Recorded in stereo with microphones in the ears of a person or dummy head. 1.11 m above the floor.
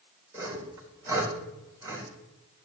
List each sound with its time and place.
0.3 s sawing: 15° right (ahead or behind), 3 m